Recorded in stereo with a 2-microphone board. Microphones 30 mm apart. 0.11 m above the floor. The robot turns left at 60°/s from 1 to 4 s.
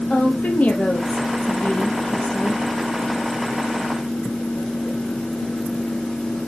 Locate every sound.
0.1 s a woman speaking: 110° left, 3 m; by 2.6 s 10° left, 3 m